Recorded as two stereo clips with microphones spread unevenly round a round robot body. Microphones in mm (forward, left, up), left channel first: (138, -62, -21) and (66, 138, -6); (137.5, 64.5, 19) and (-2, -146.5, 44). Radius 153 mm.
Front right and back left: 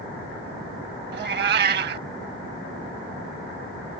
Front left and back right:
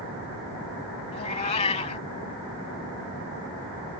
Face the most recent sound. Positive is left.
turn(degrees=125)